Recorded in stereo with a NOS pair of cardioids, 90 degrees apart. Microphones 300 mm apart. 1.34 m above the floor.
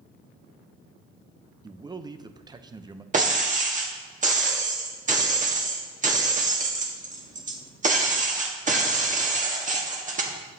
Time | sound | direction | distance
1.6 | a man speaking | 15° right | 0.7 m
3.1 | breaking glass | 30° right | 1.5 m